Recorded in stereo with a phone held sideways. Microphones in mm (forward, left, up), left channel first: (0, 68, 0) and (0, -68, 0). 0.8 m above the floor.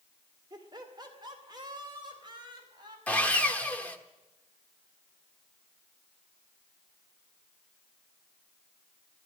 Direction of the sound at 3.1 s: 10° left (ahead or behind).